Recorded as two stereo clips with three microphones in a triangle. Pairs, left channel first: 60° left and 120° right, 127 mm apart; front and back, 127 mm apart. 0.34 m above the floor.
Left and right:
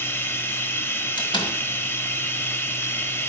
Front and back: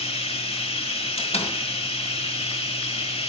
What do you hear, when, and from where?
0.0 s running water: 5° right, 1.1 m
1.2 s a door slam: 15° left, 1.8 m